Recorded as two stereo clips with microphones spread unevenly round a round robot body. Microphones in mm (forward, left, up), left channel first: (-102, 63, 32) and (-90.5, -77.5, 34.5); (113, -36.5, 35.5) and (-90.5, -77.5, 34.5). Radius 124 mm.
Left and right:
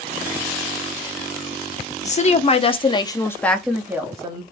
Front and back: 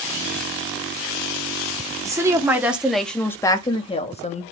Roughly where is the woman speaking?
Behind left.